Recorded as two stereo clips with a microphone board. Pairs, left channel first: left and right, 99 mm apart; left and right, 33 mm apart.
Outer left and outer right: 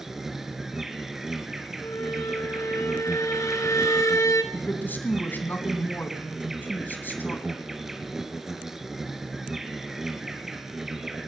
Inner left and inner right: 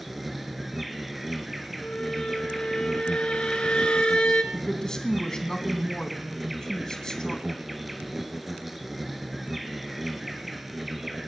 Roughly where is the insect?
Centre.